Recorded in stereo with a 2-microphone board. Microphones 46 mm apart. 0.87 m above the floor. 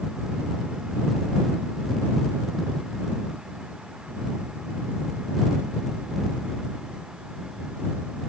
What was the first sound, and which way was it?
Only background noise.